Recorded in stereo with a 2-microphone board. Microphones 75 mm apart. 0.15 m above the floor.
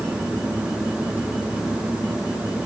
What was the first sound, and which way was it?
Only background noise.